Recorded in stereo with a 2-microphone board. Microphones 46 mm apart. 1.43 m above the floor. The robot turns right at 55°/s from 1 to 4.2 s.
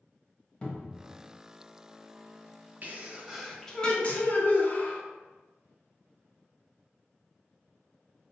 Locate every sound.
0.6 s a cupboard door: 25° left (ahead or behind), 0.6 m
2.8 s a sneeze: 40° right, 0.6 m; by 5.0 s 40° left, 0.6 m